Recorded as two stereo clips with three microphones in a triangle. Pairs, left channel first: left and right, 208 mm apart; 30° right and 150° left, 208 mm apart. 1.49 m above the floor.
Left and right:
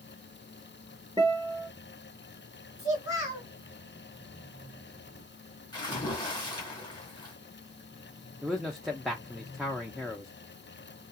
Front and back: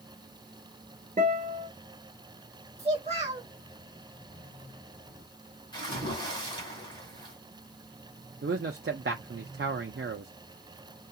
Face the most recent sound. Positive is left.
turn(degrees=180)